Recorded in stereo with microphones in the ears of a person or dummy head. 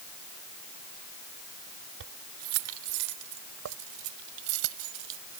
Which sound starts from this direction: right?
Keys jangling, at 2.0 s.